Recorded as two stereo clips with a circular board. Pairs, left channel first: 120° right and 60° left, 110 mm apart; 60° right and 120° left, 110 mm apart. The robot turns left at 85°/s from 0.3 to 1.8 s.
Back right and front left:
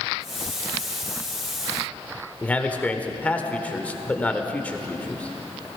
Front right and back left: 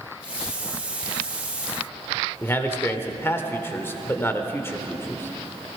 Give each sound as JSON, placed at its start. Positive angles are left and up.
{"t": 2.4, "sound": "a man speaking", "azimuth_deg": -70, "distance_m": 1.1}